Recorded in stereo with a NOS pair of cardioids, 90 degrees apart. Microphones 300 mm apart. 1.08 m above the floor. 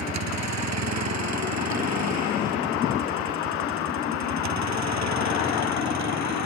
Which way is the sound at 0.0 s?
60° right.